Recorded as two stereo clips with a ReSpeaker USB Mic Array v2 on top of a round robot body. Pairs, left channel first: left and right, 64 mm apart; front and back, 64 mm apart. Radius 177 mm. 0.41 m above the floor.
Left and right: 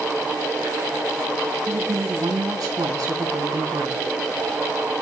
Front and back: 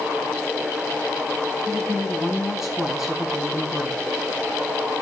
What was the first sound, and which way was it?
A woman speaking, 95° right.